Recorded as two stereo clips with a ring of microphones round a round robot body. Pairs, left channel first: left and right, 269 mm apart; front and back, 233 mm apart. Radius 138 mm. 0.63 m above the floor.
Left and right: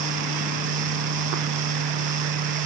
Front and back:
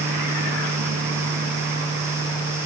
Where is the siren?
No siren in this recording.